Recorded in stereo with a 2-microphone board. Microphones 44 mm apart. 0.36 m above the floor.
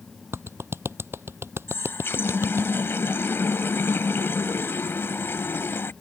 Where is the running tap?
60° left (ahead or behind).